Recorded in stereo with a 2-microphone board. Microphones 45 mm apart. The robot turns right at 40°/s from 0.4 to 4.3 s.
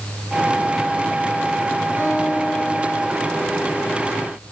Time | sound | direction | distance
2.0 | a guitar | 40° right | 4 m